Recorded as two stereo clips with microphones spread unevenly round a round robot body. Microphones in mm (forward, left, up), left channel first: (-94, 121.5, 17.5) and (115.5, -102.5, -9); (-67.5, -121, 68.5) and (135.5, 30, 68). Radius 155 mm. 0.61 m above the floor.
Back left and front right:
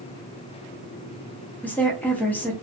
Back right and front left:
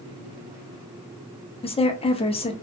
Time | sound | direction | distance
1.6 | a woman speaking | 140° right | 0.6 m